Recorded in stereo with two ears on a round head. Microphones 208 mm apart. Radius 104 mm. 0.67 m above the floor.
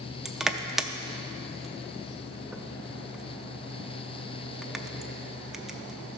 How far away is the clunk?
No clunk in this recording.